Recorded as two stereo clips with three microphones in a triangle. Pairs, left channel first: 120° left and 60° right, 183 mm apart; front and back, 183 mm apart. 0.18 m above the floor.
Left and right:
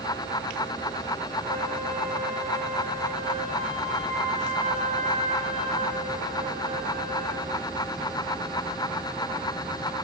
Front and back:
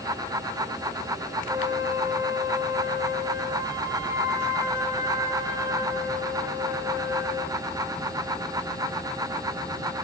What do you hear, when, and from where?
1.5 s a flute: 110° right, 6.5 m